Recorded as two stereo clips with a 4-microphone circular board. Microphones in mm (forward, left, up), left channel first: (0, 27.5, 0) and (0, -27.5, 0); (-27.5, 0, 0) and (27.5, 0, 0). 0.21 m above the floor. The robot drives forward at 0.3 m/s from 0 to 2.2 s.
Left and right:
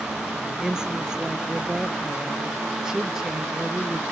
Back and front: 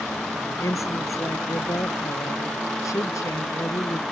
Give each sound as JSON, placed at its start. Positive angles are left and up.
{"t": 0.6, "sound": "a woman speaking", "azimuth_deg": -170}